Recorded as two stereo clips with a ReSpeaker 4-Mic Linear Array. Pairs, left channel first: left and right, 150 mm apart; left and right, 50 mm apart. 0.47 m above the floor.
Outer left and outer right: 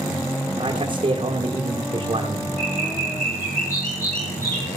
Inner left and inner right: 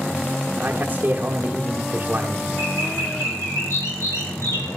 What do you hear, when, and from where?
0.6 s a man speaking: 35° right (ahead or behind), 1.0 m
2.6 s a bird: 75° left (ahead or behind), 5.5 m